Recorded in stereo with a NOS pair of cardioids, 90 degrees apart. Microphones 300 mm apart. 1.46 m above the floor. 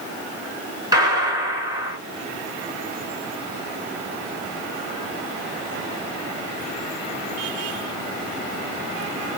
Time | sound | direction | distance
0.9 | a gunshot | 15° right | 1.6 m